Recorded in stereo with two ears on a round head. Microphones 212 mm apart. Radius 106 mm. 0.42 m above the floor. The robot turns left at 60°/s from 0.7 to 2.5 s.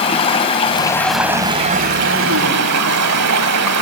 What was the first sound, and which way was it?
Running water, 25° left.